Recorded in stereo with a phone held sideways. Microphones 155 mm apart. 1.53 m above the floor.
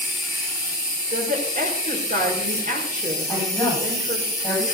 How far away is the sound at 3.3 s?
About 8.5 m.